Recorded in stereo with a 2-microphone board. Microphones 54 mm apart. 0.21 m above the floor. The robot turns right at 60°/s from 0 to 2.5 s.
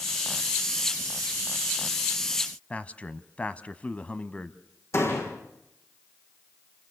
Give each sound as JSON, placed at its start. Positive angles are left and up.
{"t": 2.7, "sound": "a man speaking", "side_deg": 25, "distance_m": 1.2}
{"t": 4.9, "sound": "a door slam", "side_deg": 60, "distance_m": 8.0}